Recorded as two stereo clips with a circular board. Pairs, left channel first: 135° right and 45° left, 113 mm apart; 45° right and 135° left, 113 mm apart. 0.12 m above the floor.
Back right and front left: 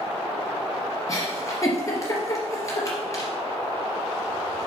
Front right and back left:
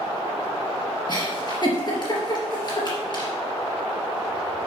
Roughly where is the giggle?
Right.